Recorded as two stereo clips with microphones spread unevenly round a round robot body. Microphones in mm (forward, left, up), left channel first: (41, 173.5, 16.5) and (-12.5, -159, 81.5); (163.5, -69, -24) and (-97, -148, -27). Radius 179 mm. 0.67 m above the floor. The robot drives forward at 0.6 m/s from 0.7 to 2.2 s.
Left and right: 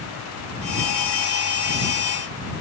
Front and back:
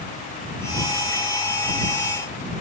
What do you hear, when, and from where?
Only background noise.